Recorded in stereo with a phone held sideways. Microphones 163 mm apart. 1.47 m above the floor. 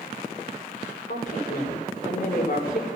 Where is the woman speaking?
55° left (ahead or behind), 5 m.